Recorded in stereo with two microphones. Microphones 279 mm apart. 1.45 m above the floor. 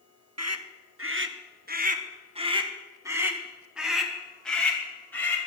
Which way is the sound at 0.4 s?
65° right (ahead or behind).